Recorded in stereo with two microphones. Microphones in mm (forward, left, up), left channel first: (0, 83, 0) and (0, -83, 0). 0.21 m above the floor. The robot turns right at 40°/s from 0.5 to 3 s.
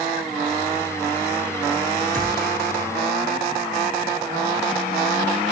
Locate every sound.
2.1 s a gunshot: 55° right (ahead or behind), 3 m; by 2.5 s 70° right (ahead or behind), 3 m